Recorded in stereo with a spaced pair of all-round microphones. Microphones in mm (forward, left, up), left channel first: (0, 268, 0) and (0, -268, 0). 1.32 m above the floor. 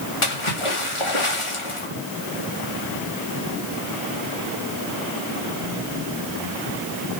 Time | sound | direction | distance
0.2 | a splash | 65° left (ahead or behind) | 2.5 m